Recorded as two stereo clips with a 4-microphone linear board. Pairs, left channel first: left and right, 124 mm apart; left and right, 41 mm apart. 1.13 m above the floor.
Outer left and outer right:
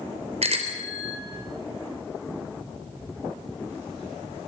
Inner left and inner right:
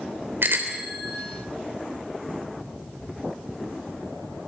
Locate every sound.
0.4 s a bicycle bell: 60° right (ahead or behind), 3 m